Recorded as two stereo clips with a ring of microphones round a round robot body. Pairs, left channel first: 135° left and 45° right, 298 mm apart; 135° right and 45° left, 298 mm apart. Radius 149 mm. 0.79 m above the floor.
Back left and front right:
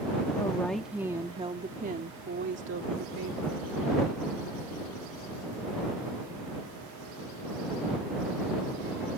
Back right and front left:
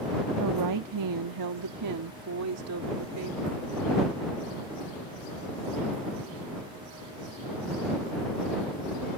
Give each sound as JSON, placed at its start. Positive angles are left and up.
{"t": 0.4, "sound": "a woman speaking", "azimuth_deg": 60}